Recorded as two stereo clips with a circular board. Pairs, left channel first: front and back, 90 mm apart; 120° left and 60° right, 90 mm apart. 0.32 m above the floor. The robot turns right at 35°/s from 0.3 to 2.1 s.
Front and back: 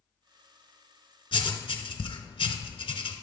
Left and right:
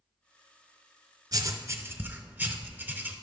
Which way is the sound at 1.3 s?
20° right.